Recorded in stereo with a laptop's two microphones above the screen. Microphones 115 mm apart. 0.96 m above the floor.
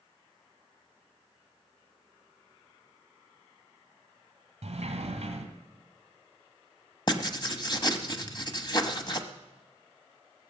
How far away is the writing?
About 1.0 m.